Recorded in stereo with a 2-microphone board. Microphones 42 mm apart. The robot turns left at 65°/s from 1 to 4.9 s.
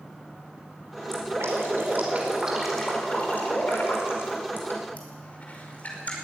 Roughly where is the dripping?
Right.